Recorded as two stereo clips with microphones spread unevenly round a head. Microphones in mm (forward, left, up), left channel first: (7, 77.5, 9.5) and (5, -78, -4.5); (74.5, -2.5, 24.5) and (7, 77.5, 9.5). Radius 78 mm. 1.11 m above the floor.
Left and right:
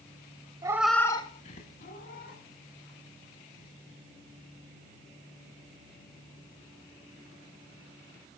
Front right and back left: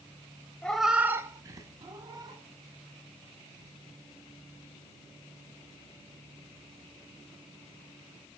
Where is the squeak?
No squeak in this recording.